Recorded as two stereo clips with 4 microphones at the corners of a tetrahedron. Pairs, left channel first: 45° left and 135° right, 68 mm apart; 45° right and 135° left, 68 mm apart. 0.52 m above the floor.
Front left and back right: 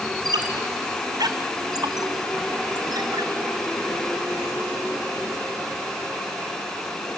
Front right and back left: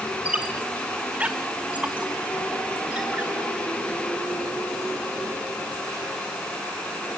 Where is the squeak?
155° right, 1.6 m.